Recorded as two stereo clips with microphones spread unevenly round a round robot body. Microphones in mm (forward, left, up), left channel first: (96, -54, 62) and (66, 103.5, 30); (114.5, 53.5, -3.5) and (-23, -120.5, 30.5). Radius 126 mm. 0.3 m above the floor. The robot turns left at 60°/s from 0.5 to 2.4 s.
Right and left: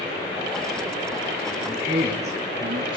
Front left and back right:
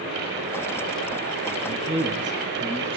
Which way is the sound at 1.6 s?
155° right.